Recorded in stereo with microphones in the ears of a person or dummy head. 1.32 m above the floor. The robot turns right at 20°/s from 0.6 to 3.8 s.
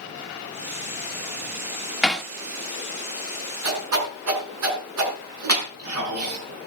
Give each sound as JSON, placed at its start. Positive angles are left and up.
{"t": 2.0, "sound": "hammering", "side_deg": 10, "distance_m": 1.5}
{"t": 3.6, "sound": "a whoosh", "side_deg": -75, "distance_m": 5.5}